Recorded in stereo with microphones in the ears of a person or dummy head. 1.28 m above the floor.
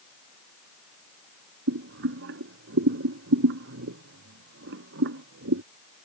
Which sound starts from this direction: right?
Boiling, at 1.7 s.